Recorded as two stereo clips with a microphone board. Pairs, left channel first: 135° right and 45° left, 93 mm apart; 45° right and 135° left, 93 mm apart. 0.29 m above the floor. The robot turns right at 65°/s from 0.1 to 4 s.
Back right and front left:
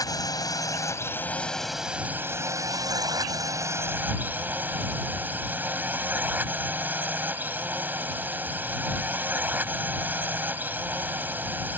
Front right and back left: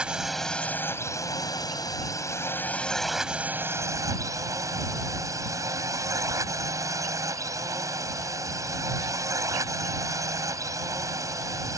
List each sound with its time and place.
0.0 s a drone: 150° right; by 11.8 s 105° left